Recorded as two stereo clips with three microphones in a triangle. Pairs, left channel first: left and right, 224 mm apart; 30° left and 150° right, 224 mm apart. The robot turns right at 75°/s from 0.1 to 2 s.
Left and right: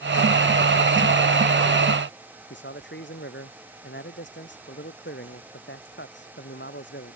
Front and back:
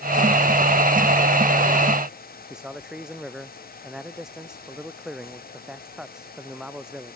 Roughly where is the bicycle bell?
I don't hear a bicycle bell.